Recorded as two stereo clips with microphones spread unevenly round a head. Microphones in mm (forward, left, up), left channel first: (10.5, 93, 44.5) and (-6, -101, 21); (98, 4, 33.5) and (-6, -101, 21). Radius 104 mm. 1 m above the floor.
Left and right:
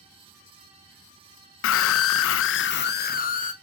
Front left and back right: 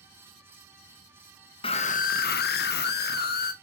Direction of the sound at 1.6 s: 110° left.